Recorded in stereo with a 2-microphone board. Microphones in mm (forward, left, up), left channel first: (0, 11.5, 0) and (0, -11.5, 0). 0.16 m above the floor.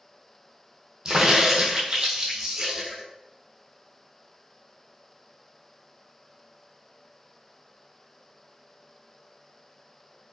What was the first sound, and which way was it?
A crack, 40° right (ahead or behind).